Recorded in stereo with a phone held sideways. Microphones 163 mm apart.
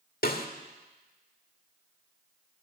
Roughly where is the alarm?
I don't hear an alarm.